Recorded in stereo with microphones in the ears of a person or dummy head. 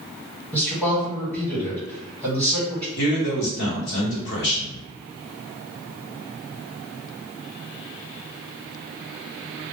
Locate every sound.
0.5 s a man speaking: 10° left (ahead or behind), 1.3 m
3.0 s a man speaking: 60° left (ahead or behind), 1.1 m